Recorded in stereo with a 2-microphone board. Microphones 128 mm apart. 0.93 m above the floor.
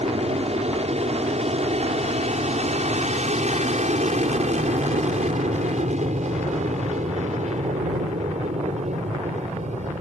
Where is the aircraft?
55° right (ahead or behind); by 10.0 s 65° right (ahead or behind).